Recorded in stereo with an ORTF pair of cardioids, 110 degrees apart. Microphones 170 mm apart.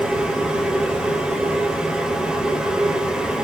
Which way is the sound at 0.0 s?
5° right.